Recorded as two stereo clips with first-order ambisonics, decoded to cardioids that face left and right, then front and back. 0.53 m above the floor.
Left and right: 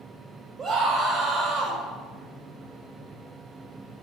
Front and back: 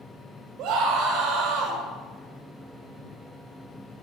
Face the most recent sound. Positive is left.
turn(degrees=-160)